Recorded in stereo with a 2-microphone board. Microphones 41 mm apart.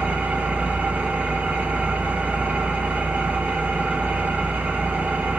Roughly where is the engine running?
Right.